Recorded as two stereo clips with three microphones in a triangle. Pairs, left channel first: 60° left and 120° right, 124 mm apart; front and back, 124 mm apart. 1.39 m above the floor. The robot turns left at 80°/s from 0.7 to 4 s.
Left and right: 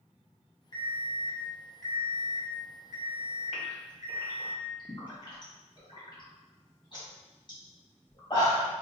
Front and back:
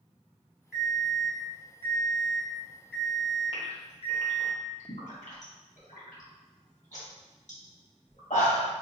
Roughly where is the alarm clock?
Left.